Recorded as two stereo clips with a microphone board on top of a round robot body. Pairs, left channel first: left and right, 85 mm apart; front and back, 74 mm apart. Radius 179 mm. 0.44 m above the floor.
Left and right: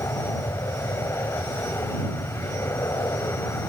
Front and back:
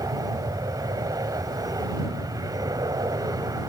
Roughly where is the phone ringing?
I don't hear a phone ringing.